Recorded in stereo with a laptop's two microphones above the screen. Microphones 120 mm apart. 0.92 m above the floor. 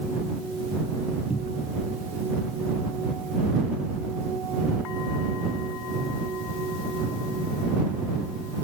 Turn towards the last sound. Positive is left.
turn(degrees=60)  # may be behind; listen again after turning